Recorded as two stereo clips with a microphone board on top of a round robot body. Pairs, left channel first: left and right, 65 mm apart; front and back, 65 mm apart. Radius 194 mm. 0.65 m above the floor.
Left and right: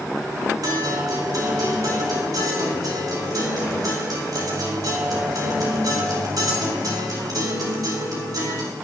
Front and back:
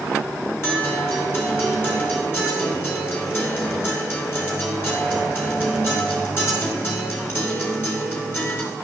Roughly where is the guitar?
Ahead right.